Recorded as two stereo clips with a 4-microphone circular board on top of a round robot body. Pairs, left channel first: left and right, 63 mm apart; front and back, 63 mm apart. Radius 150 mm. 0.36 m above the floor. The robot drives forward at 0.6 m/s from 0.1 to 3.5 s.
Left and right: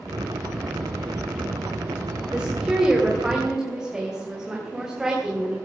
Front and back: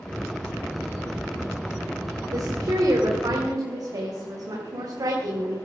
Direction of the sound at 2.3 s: 165° right.